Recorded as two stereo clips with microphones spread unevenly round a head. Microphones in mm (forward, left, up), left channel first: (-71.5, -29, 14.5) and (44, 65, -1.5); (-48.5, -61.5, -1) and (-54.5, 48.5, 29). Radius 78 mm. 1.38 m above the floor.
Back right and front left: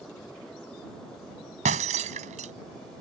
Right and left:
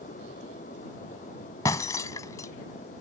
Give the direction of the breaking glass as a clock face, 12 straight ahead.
12 o'clock.